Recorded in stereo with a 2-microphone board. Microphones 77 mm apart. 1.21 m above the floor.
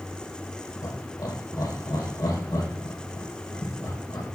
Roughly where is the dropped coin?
No dropped coin in this recording.